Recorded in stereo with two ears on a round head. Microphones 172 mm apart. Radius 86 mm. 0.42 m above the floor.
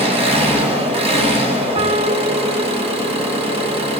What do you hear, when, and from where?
0.0 s an engine running: 30° right (ahead or behind), 1.8 m
1.8 s a piano: 30° right (ahead or behind), 0.6 m